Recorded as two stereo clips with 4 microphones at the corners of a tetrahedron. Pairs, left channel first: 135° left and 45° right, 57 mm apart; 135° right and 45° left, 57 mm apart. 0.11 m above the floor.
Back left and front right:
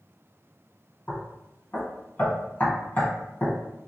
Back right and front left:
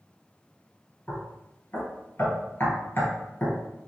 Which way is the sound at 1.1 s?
175° right.